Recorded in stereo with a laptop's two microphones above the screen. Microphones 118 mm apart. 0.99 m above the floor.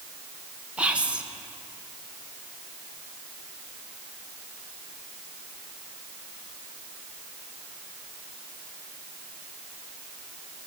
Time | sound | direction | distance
0.8 | whispering | 10° right (ahead or behind) | 0.8 m